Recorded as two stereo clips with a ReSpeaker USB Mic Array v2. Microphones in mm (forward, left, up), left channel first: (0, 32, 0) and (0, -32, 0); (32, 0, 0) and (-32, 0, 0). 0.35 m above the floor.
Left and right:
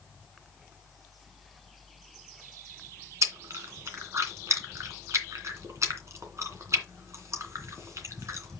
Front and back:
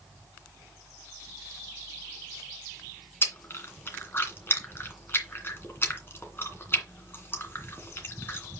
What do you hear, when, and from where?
3.2 s chewing: 55° right, 2.5 m